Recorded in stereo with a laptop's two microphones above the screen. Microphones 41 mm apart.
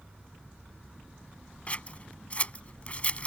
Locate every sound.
1.7 s scissors: 35° left (ahead or behind)